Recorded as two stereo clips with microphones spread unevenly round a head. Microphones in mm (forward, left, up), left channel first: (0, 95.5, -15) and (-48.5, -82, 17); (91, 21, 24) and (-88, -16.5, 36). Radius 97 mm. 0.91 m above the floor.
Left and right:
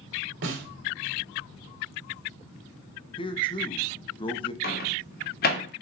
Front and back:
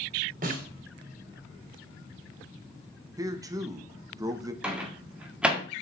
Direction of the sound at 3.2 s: 120° left.